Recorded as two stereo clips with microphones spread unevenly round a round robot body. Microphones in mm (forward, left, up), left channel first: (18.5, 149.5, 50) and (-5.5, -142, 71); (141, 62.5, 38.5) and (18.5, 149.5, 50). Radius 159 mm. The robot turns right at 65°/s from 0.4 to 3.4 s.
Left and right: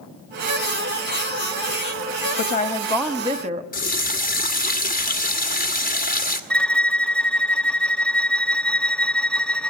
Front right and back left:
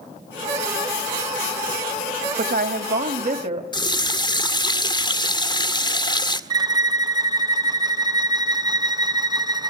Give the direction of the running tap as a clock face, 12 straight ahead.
11 o'clock.